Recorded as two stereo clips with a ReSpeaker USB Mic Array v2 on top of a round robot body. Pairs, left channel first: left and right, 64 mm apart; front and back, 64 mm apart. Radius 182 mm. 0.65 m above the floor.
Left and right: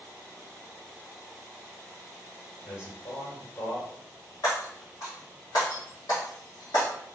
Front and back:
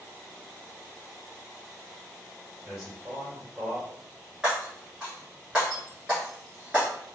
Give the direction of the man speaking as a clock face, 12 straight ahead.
8 o'clock.